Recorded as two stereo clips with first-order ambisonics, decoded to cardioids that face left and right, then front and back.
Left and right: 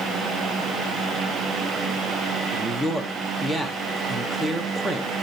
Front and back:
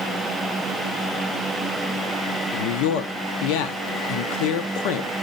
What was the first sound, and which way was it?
A man speaking, 5° right.